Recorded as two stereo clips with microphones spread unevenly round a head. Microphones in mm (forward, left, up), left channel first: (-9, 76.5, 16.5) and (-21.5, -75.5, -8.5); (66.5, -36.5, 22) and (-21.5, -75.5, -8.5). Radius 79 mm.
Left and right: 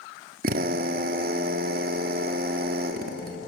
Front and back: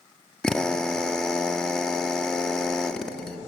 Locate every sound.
0.4 s a drill: 55° right, 1.6 m